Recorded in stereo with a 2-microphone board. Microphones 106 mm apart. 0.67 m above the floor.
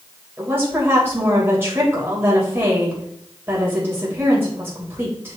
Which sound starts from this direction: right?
A woman speaking, at 0.4 s.